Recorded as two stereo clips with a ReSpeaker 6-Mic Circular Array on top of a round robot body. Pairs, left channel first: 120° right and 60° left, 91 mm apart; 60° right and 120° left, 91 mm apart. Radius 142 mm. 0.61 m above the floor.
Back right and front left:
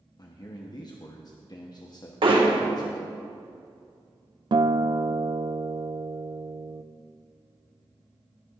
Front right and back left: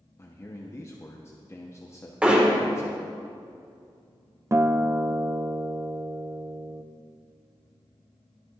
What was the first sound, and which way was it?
A man speaking, 105° right.